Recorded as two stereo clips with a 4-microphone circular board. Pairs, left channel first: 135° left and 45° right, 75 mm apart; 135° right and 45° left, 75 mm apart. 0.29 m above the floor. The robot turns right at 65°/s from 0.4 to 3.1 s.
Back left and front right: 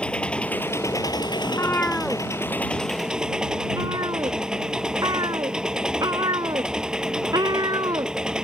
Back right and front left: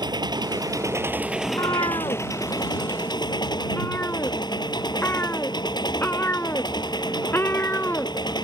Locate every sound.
0.0 s an engine running: 60° left; by 8.4 s 125° right
1.4 s a cat meowing: straight behind; by 8.4 s 75° right